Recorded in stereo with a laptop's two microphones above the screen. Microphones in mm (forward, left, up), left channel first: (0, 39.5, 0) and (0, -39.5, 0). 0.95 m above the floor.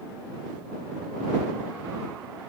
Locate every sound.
Only background noise.